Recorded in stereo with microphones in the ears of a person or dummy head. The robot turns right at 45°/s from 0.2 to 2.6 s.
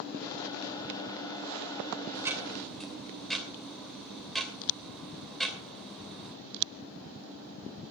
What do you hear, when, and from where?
2.1 s ticking: 25° right (ahead or behind), 2.5 m; by 6.3 s 5° right (ahead or behind), 2.5 m